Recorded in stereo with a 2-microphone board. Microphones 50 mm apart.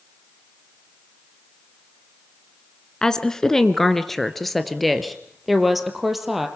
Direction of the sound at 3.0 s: 15° left (ahead or behind).